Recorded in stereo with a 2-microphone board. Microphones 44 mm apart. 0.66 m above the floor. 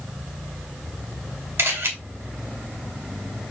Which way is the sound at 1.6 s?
75° right (ahead or behind).